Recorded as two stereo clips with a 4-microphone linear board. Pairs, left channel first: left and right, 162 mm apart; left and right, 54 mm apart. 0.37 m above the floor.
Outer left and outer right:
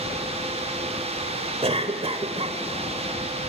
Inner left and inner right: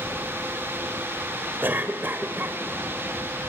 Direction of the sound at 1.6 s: 40° right (ahead or behind).